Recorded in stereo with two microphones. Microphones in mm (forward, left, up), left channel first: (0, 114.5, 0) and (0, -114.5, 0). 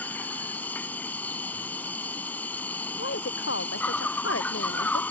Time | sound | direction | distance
0.0 | an insect | 5° left (ahead or behind) | ?
3.0 | a woman speaking | 70° left (ahead or behind) | ?